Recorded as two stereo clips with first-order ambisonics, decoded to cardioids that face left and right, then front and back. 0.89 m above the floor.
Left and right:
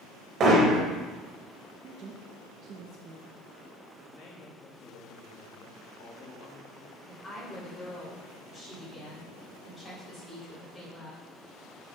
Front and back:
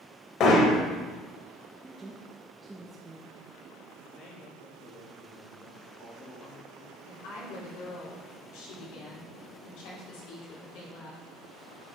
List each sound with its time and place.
0.4 s hammering: 40° right, 0.9 m
1.8 s a woman speaking: 110° right, 0.5 m
4.1 s a man speaking: 50° left, 1.5 m
7.1 s a woman speaking: 15° left, 2.5 m